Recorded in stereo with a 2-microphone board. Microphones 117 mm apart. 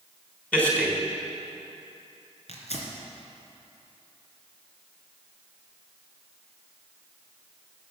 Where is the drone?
No drone in this recording.